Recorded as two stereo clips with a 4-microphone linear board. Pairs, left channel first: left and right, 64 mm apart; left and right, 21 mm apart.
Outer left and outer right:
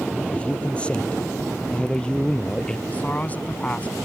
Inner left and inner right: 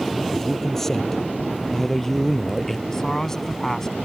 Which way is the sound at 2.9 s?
25° left (ahead or behind).